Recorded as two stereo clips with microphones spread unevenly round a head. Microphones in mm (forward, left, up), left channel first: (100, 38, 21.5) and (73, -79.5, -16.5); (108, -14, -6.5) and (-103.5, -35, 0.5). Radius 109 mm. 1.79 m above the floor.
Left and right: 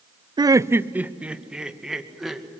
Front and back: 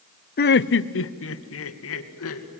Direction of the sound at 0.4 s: 40° right.